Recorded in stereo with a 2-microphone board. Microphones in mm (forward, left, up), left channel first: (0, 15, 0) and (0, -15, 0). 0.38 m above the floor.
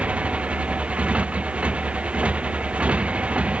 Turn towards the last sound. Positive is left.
turn(degrees=-45)  # may be behind; listen again after turning